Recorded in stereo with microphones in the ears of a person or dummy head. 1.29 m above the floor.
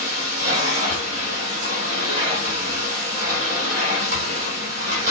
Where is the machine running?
45° right (ahead or behind), 1.7 m.